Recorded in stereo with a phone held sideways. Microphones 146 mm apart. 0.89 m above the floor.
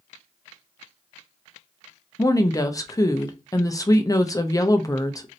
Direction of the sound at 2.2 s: 25° left (ahead or behind).